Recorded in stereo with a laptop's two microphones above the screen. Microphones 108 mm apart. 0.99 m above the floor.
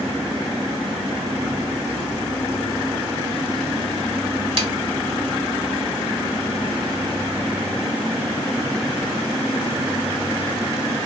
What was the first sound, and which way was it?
A snare drum, 60° right (ahead or behind).